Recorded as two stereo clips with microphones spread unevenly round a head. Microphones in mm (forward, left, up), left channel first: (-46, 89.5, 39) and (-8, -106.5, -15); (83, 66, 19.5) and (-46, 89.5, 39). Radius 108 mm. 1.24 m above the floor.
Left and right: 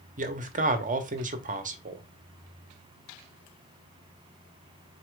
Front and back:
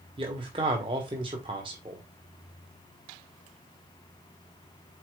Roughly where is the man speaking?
Behind right.